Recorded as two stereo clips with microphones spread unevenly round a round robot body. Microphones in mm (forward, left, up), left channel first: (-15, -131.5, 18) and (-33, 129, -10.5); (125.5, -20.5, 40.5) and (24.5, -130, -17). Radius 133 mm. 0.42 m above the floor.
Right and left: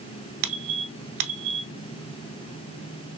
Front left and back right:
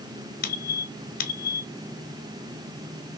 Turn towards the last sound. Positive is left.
turn(degrees=75)